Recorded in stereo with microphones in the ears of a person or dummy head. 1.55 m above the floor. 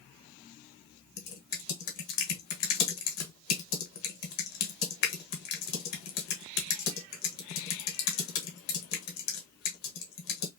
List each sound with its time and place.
1.2 s typing on a keyboard: 60° left (ahead or behind), 1.2 m